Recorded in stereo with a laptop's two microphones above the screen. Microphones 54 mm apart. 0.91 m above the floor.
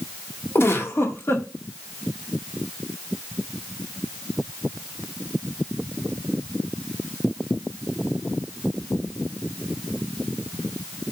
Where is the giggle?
55° left (ahead or behind), 1.7 m.